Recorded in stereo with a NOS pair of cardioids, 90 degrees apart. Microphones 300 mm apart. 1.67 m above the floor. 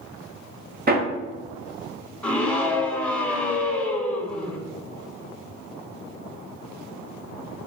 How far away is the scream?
About 1.8 m.